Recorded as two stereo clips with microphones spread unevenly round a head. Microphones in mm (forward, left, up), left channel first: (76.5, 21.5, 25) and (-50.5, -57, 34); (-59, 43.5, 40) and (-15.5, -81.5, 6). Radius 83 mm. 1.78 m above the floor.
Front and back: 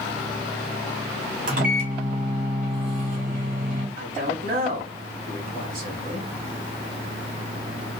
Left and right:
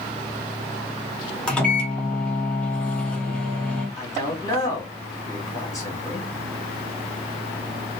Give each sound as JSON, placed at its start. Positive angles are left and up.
{"t": 1.5, "sound": "a microwave", "azimuth_deg": 180, "distance_m": 1.0}
{"t": 4.0, "sound": "a man speaking", "azimuth_deg": 170, "distance_m": 1.8}